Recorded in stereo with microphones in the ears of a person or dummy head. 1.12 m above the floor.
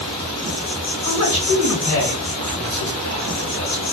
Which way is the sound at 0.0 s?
30° left (ahead or behind).